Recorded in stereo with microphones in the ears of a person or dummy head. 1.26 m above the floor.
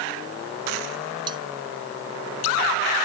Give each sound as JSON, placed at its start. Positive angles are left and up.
{"t": 1.3, "sound": "cutlery clinking", "side_deg": -25}